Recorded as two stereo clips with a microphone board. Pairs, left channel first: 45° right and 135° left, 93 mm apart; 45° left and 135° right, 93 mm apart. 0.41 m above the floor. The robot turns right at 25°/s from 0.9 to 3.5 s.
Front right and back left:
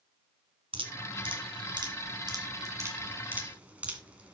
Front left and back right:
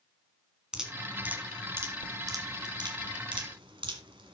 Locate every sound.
0.7 s dripping: 145° left, 1.9 m; by 4.3 s 150° right, 1.9 m